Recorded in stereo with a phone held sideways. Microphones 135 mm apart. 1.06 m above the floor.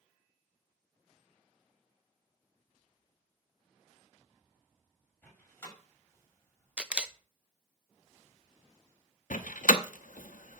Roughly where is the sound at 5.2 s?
Centre.